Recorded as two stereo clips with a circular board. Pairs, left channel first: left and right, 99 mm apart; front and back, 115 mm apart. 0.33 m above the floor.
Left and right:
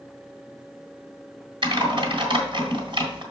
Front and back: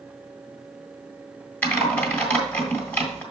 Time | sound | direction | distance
1.6 | typing on a keyboard | 70° right | 1.9 m